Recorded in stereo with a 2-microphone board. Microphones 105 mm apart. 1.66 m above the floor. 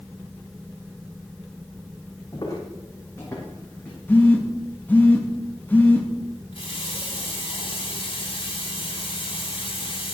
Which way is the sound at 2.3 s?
40° left (ahead or behind).